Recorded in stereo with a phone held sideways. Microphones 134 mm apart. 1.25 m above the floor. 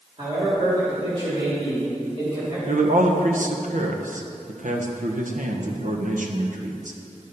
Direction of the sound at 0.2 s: 45° right (ahead or behind).